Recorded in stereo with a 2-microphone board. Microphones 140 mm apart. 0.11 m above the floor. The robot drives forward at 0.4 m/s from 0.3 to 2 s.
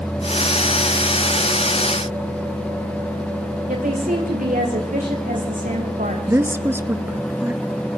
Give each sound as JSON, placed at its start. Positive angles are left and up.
{"t": 3.7, "sound": "a woman speaking", "side_deg": -75, "distance_m": 8.0}
{"t": 6.3, "sound": "a woman speaking", "side_deg": -15, "distance_m": 1.6}